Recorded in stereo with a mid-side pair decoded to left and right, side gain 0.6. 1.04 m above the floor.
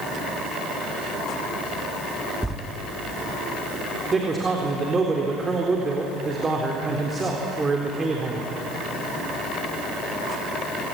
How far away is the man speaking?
About 3.5 m.